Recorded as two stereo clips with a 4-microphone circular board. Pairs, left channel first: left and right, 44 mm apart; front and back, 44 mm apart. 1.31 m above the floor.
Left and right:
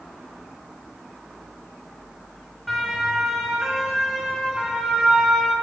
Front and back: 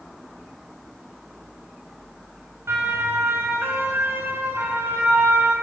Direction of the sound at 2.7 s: Straight behind.